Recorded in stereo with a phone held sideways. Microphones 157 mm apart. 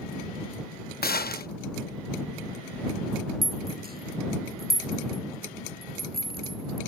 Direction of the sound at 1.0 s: 80° left.